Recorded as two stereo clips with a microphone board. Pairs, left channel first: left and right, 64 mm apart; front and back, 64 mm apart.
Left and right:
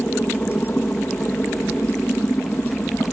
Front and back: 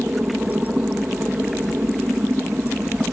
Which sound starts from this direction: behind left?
A helicopter, at 0.0 s.